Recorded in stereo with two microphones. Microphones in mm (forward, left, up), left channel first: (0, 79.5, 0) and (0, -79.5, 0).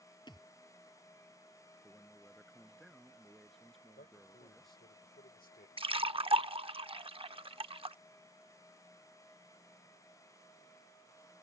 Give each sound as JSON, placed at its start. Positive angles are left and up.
{"t": 0.3, "sound": "a thud", "side_deg": 30}
{"t": 1.8, "sound": "a man speaking", "side_deg": 0}
{"t": 4.0, "sound": "a man speaking", "side_deg": 75}
{"t": 5.8, "sound": "a splash", "side_deg": -35}